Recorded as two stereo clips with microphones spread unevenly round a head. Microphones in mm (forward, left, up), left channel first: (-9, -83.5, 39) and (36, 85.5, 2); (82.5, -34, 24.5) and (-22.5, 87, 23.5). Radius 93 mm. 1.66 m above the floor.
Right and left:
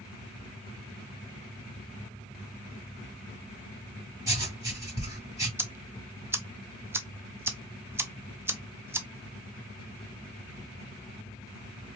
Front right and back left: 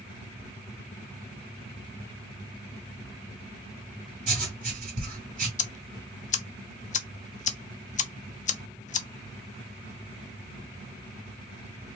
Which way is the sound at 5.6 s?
5° right.